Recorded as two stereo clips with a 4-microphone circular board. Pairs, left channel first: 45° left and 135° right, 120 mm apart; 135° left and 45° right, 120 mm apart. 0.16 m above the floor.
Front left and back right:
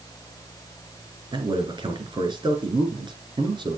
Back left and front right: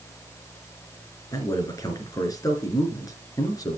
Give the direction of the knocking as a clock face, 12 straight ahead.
I don't hear knocking.